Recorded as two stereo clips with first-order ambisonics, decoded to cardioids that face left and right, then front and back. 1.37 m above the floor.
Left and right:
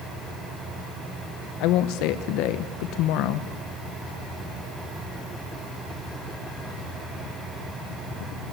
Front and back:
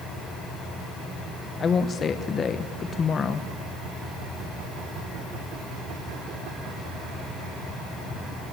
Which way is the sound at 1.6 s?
65° left.